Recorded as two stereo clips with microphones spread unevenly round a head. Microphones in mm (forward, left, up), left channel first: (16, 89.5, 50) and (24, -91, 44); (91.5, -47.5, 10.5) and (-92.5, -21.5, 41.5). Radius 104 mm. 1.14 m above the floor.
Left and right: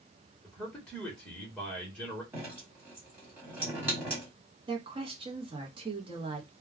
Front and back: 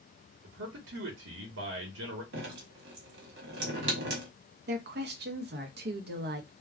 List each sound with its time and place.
0.4 s a man speaking: straight behind, 1.1 m
2.3 s dripping: 170° right, 1.3 m
4.7 s a woman speaking: 150° right, 0.8 m